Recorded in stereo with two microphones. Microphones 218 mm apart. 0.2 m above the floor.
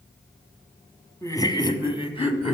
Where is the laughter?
15° left (ahead or behind), 1.2 m; by 2.5 s 30° left (ahead or behind), 1.1 m.